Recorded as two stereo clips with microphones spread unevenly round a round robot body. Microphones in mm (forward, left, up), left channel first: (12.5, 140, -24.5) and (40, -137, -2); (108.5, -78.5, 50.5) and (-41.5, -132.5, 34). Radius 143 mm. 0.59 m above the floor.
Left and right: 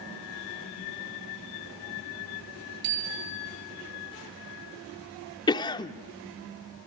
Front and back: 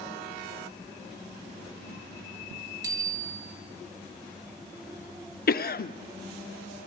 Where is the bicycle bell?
90° right, 7 m.